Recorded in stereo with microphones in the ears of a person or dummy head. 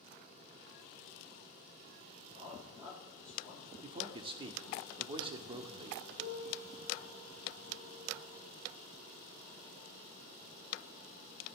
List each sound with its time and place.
2.3 s a man speaking: 35° right (ahead or behind), 4 m; by 3.7 s 40° right (ahead or behind), 5 m
3.8 s a man speaking: 25° right (ahead or behind), 0.6 m
6.2 s a piano: 35° right (ahead or behind), 4 m